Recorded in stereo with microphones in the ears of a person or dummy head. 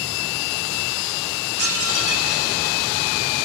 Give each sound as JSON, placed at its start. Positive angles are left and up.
{"t": 1.6, "sound": "dishes clattering", "side_deg": -75, "distance_m": 6.0}